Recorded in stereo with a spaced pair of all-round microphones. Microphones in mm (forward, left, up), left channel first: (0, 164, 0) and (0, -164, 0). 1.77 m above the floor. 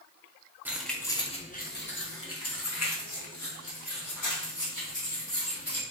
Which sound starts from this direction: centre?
Keys jangling, at 0.7 s.